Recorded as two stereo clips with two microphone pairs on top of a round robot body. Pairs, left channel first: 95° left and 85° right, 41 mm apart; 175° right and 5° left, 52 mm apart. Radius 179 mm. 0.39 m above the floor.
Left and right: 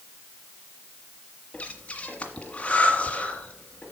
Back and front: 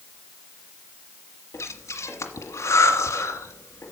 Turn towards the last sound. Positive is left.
turn(degrees=155)